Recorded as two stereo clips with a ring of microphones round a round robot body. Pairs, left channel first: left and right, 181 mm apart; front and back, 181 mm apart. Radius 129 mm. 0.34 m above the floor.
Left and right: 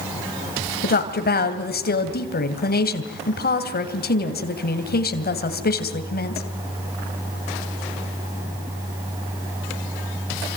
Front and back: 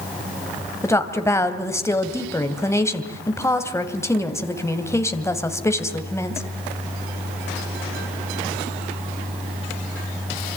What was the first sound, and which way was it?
A woman speaking, 75° left.